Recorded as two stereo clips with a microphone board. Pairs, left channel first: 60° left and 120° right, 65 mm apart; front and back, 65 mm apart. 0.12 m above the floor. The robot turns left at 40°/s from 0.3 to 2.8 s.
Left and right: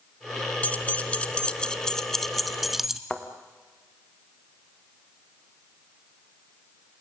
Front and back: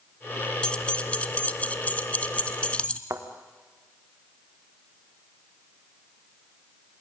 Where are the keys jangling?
45° left, 0.8 m; by 3.0 s 40° right, 0.8 m.